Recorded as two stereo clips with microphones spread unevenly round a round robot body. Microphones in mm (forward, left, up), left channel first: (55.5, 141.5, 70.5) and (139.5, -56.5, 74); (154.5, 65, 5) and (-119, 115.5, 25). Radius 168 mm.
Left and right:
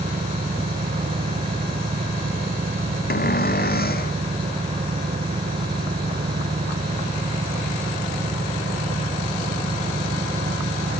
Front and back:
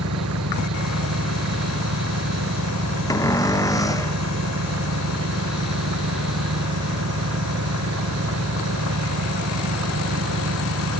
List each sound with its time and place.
0.0 s an engine running: 140° right
3.1 s a cupboard door: 70° left